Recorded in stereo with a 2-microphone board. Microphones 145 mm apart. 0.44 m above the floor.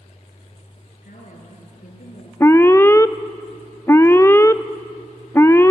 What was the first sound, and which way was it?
A woman speaking, 70° left (ahead or behind).